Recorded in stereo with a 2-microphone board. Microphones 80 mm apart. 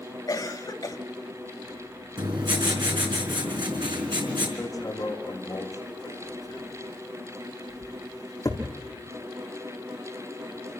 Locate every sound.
0.3 s a cough: 55° left (ahead or behind), 1.4 m
2.2 s writing: 70° right (ahead or behind), 4.5 m
4.6 s hammering: 40° left (ahead or behind), 5 m